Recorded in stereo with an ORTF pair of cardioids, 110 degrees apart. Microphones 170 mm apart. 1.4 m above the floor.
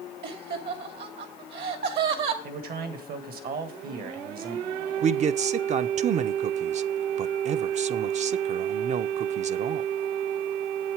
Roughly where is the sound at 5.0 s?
Ahead right.